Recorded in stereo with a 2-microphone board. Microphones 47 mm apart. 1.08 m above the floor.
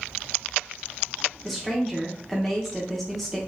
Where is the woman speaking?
Centre (ahead or behind), 0.8 m.